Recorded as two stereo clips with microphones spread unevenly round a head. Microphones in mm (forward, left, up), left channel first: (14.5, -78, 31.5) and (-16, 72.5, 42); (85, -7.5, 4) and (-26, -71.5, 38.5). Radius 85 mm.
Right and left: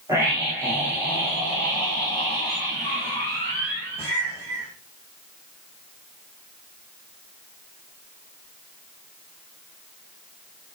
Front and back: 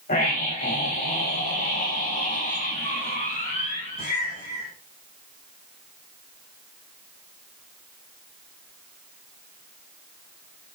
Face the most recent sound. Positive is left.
turn(degrees=25)